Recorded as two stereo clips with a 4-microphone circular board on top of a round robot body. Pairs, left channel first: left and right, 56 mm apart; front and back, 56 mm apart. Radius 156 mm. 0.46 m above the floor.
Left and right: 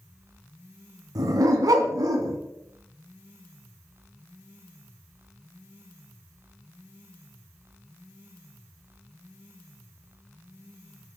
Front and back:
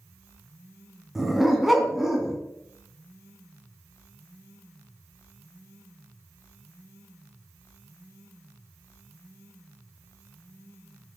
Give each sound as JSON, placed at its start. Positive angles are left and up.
{"t": 1.1, "sound": "a dog barking", "azimuth_deg": -90, "distance_m": 2.5}